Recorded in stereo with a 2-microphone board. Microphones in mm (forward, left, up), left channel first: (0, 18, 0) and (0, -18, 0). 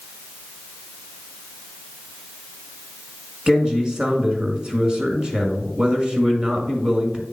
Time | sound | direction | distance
3.5 | a man speaking | 20° right (ahead or behind) | 1.4 m